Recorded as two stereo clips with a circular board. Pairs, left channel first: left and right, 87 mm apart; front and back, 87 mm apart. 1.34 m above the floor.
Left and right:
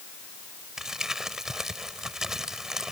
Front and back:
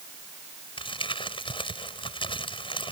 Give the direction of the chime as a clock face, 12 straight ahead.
I don't hear a chime.